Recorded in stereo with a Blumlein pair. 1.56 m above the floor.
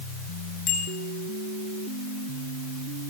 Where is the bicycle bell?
35° left, 7.5 m.